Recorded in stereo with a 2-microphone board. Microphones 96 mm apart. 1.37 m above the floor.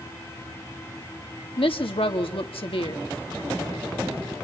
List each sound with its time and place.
1.6 s a woman speaking: 70° left (ahead or behind), 2.5 m